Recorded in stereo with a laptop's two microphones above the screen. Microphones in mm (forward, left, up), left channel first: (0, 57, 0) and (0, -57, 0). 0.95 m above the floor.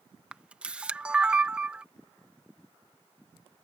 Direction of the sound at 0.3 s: 10° right (ahead or behind).